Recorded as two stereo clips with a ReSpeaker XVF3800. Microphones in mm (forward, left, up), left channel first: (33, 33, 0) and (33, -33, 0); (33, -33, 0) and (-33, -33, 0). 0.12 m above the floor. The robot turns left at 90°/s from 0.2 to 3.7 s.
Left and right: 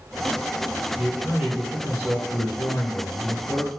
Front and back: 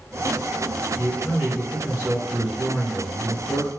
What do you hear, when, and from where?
1.0 s a man speaking: 50° right, 1.5 m; by 3.7 s 65° left, 1.5 m